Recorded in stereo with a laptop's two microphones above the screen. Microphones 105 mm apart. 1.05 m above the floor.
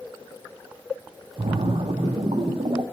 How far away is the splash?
About 0.5 m.